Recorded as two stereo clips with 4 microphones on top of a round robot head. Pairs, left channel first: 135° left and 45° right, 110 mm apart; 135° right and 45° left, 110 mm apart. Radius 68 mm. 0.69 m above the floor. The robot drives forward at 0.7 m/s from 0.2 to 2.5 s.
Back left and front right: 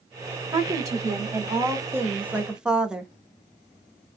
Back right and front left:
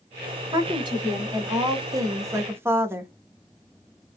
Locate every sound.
0.5 s a woman speaking: 5° left, 1.9 m; by 3.1 s 25° left, 0.9 m